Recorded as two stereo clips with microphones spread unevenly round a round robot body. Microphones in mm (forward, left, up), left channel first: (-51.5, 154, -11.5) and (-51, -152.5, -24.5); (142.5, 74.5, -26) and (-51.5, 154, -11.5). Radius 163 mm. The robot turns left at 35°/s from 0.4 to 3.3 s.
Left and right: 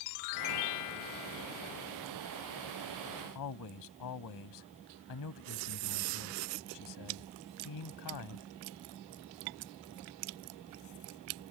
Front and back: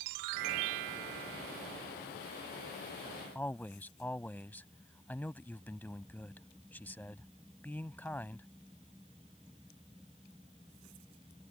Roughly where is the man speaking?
Ahead left.